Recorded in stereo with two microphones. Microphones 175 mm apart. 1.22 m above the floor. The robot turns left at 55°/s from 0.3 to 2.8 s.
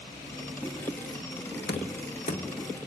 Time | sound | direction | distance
1.7 | knocking | 80° left | 0.8 m